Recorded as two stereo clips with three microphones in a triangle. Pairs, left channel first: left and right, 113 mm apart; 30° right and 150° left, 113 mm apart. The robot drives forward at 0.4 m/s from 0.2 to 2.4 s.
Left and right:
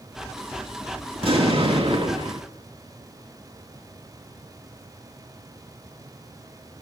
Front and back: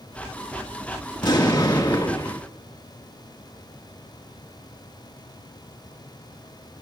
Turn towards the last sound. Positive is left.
turn(degrees=-85)